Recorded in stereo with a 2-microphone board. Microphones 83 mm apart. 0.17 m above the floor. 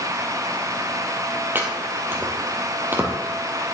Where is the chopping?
25° right (ahead or behind), 2 m.